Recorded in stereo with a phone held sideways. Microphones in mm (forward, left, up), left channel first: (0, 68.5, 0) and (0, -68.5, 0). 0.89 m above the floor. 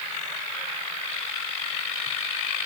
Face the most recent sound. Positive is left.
No sound to turn to.